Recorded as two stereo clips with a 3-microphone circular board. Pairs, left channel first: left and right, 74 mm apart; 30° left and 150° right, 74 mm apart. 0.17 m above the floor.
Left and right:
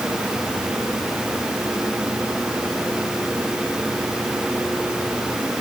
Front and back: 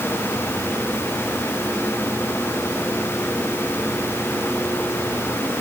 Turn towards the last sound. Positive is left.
No sound to turn to.